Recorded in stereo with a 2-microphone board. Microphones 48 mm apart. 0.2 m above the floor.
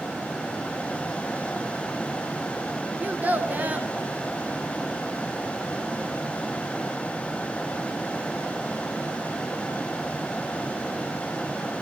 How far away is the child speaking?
About 1.7 m.